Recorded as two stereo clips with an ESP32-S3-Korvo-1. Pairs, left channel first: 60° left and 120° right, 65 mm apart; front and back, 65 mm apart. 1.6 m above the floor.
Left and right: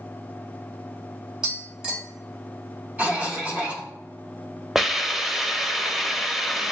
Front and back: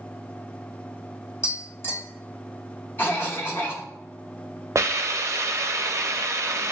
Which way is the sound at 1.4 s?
45° right.